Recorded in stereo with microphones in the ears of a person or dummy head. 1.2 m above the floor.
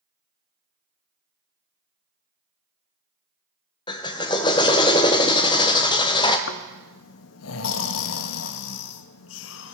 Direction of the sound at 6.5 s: 70° left (ahead or behind).